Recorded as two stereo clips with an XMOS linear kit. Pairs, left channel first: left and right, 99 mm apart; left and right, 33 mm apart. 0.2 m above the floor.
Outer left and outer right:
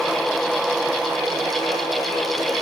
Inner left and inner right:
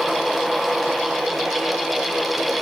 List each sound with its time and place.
Only background noise.